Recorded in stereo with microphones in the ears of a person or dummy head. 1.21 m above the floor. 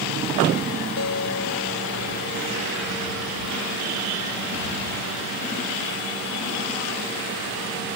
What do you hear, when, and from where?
1.0 s a guitar: 85° left